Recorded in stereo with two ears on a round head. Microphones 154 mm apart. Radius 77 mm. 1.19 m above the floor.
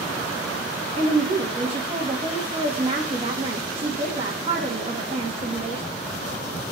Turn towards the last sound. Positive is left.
turn(degrees=-30)  # may be behind; listen again after turning